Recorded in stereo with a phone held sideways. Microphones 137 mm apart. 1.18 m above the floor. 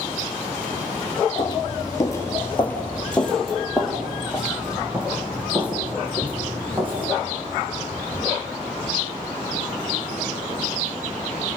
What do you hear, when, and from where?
1.4 s footsteps: 35° left (ahead or behind), 1.4 m; by 7.1 s 15° right (ahead or behind), 4.5 m